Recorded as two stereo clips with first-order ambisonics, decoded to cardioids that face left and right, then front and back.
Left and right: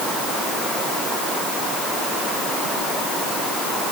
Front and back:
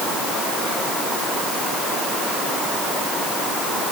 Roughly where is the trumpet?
No trumpet in this recording.